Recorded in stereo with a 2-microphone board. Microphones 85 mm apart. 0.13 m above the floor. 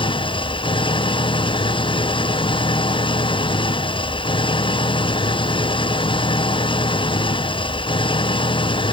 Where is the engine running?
80° left.